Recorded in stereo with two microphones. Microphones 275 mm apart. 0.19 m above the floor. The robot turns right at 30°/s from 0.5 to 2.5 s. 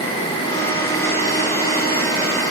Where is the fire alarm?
No fire alarm in this recording.